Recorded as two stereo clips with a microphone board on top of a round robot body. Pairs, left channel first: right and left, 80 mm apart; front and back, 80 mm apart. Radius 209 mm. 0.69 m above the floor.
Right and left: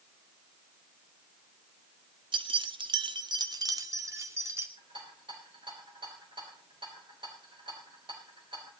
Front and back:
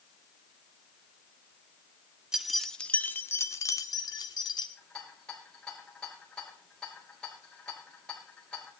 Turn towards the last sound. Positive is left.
turn(degrees=80)